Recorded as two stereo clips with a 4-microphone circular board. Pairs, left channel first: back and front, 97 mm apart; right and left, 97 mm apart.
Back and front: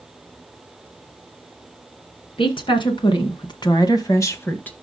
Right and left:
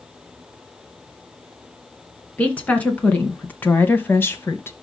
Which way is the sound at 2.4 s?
165° right.